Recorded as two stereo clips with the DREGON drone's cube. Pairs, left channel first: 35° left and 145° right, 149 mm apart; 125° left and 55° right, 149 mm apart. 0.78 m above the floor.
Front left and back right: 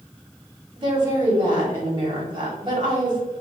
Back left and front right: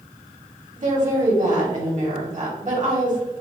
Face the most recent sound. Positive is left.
turn(degrees=-90)